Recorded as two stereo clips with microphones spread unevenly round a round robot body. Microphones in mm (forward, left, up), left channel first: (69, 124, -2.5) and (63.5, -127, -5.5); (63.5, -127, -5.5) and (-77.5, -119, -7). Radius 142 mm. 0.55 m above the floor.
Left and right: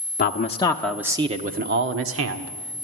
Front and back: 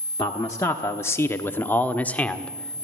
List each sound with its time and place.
0.2 s a man speaking: 65° left, 1.2 m; by 2.8 s 85° right, 2 m